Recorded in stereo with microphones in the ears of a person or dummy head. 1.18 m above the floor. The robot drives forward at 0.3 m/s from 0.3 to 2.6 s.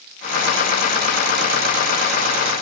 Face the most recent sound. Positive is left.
No sound to turn to.